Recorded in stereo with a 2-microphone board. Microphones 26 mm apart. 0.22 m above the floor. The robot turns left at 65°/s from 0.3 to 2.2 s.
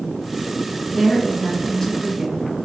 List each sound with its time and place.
0.9 s a woman speaking: 25° left (ahead or behind), 1.2 m; by 2.4 s 5° left (ahead or behind), 1.2 m